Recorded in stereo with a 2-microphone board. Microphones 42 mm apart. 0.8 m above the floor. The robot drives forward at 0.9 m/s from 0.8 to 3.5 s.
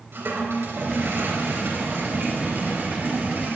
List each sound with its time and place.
0.1 s a toilet flushing: 75° right (ahead or behind), 4 m; by 3.6 s 50° right (ahead or behind), 4.5 m